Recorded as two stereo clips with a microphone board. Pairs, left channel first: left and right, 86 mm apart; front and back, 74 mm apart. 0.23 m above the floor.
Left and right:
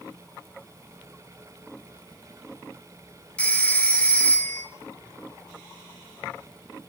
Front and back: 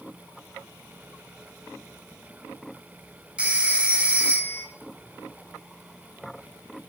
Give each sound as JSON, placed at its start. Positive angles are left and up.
{"t": 3.4, "sound": "a phone ringing", "azimuth_deg": 135, "distance_m": 0.5}